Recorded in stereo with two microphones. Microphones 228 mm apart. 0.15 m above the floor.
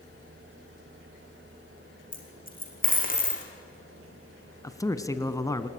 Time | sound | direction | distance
2.1 | a dropped coin | 40° left (ahead or behind) | 3.5 m
4.6 | a man speaking | 15° left (ahead or behind) | 1.1 m